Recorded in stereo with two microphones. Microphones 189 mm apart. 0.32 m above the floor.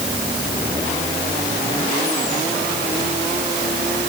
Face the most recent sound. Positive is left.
No sound to turn to.